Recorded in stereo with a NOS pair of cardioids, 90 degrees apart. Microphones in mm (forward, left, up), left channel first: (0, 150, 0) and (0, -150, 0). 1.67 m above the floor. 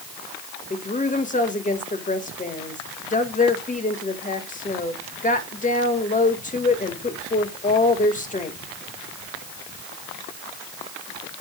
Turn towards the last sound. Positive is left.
turn(degrees=25)